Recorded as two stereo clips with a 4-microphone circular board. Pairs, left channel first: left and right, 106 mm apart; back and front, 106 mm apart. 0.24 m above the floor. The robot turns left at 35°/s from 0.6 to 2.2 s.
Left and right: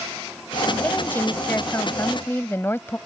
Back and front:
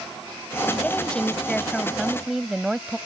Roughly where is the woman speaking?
Behind left.